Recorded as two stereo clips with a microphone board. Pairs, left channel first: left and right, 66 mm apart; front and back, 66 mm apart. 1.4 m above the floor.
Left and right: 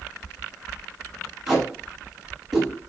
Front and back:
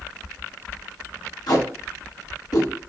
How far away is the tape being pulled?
About 4 m.